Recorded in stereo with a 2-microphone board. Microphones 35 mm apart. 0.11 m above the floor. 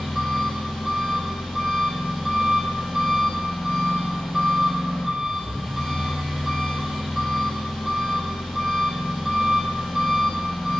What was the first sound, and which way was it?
An engine running, 10° right (ahead or behind).